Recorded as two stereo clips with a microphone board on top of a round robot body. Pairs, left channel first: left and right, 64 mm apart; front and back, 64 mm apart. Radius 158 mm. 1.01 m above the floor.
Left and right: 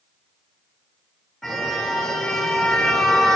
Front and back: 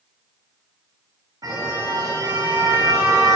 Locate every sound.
1.4 s a car horn: straight behind, 9.5 m